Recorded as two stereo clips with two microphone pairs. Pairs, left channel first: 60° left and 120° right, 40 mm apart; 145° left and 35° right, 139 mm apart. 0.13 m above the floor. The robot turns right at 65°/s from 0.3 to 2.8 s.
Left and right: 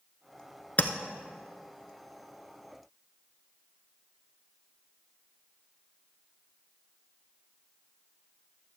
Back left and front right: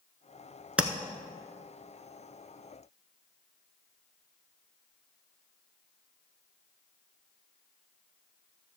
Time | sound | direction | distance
0.8 | tapping | 45° left | 0.7 m